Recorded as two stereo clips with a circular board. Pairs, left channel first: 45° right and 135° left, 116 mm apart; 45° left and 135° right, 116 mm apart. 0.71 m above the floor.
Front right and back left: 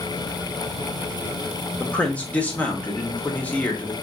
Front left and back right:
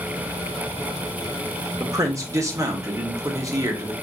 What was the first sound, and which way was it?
A man speaking, 110° right.